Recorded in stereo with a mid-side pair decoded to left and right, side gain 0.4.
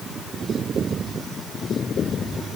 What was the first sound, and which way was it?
Only background noise.